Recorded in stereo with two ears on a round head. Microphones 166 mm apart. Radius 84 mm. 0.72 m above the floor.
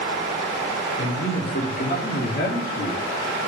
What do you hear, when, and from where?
1.0 s a man speaking: 60° left (ahead or behind), 2.5 m; by 3.0 s 55° left (ahead or behind), 1.7 m